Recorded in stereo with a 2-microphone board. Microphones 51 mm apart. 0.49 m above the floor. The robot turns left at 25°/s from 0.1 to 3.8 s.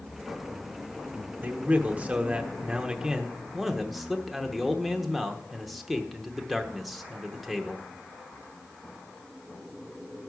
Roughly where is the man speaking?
Behind right.